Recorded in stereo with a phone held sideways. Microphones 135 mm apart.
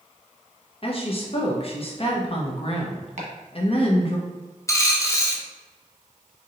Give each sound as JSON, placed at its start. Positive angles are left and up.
{"t": 0.8, "sound": "a woman speaking", "side_deg": 45, "distance_m": 0.9}
{"t": 3.2, "sound": "chopping", "side_deg": -60, "distance_m": 1.0}
{"t": 4.7, "sound": "a dropped coin", "side_deg": 20, "distance_m": 0.6}